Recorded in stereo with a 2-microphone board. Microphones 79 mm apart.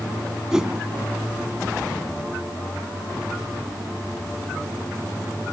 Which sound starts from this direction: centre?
A whoosh, at 0.5 s.